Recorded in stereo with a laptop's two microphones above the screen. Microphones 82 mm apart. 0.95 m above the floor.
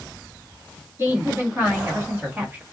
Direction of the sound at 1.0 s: 30° right (ahead or behind).